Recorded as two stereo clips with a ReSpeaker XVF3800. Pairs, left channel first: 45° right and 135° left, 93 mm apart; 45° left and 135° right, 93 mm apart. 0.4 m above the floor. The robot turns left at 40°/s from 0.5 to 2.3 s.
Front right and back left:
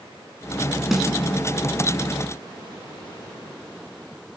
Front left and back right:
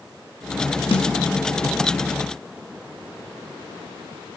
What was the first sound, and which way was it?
A snare drum, 50° left.